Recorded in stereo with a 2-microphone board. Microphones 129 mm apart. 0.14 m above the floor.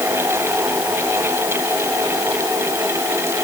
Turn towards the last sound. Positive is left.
No sound to turn to.